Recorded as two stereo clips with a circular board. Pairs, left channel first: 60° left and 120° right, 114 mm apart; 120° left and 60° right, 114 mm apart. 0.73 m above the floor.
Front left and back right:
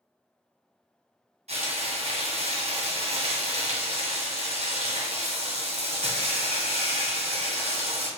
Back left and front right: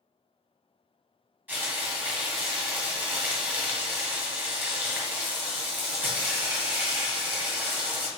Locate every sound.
1.5 s frying: 135° right, 1.6 m